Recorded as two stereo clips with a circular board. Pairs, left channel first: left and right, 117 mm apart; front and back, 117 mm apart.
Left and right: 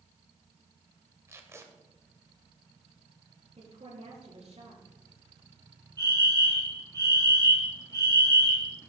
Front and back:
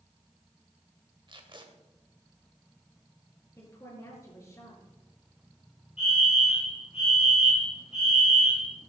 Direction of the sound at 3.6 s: 65° right.